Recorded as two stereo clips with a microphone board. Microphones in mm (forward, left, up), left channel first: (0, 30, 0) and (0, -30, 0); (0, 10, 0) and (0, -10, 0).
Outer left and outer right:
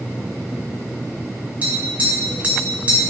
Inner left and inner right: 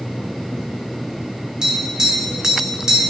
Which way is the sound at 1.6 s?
25° right (ahead or behind).